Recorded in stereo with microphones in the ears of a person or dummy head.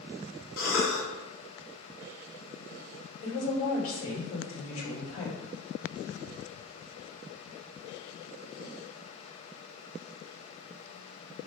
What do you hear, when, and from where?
0.6 s a cough: 80° left, 1.7 m
3.2 s a woman speaking: 70° left (ahead or behind), 1.8 m